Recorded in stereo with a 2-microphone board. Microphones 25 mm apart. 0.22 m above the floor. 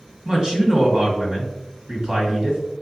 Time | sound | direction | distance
0.2 | a man speaking | 30° right (ahead or behind) | 1.8 m